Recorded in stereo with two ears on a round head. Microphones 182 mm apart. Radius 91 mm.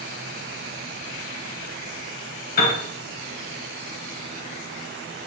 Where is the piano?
45° left (ahead or behind), 1.8 m.